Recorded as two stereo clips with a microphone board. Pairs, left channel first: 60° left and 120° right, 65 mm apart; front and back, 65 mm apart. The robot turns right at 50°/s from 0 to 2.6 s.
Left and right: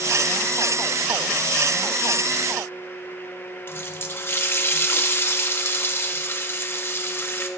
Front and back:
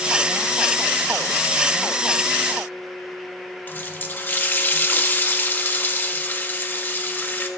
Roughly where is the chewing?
I don't hear chewing.